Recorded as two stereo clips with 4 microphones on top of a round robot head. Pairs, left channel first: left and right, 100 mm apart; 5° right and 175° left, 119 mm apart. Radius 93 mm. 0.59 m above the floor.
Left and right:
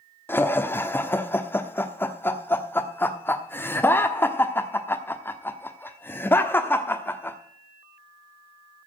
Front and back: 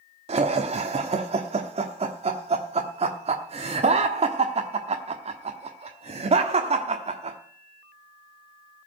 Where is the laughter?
155° left, 1.2 m.